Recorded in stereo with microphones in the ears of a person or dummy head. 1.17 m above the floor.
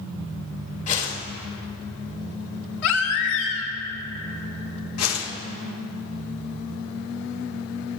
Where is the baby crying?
75° left (ahead or behind), 2.5 m.